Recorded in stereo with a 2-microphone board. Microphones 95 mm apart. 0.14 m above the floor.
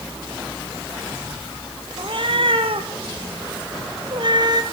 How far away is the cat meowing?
About 2 m.